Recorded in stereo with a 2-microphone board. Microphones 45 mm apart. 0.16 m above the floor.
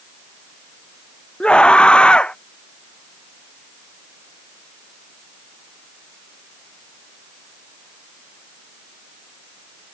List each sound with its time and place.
1.4 s a scream: 25° left (ahead or behind)